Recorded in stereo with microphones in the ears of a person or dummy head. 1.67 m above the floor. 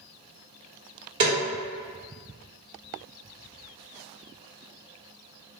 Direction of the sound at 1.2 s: 25° right (ahead or behind).